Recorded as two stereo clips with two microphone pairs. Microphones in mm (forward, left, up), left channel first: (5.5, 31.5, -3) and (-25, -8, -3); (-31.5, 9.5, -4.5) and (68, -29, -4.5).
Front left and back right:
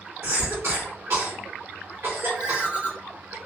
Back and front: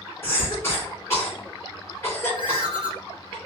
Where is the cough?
135° right, 1.3 m.